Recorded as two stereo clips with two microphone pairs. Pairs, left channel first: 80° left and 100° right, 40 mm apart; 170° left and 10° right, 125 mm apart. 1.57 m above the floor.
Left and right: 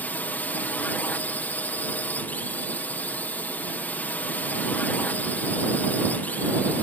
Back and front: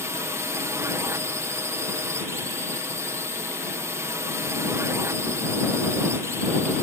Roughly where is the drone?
Ahead left.